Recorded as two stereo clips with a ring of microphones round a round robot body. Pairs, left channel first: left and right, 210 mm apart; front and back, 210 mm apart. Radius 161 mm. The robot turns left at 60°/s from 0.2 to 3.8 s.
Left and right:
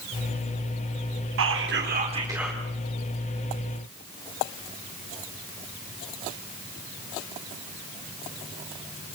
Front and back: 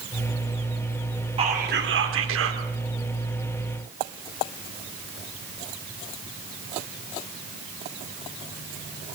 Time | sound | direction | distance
1.4 | whispering | 110° right | 3.5 m